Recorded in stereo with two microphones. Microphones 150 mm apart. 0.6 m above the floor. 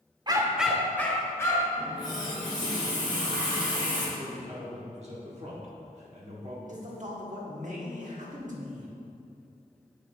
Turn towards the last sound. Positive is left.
turn(degrees=-55)  # may be behind; listen again after turning